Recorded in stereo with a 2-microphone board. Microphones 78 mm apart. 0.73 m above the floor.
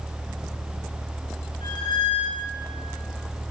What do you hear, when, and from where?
1.6 s a squeak: 80° left, 4 m